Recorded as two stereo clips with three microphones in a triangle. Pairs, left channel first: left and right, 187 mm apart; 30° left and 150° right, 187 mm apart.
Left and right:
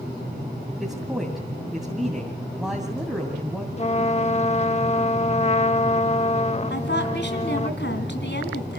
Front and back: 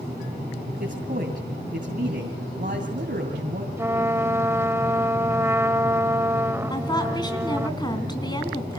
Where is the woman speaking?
95° left, 3 m.